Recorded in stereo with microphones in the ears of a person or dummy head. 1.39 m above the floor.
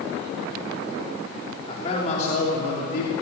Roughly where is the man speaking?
Left.